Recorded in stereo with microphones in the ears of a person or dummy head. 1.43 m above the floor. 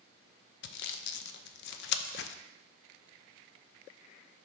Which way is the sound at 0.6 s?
65° left (ahead or behind).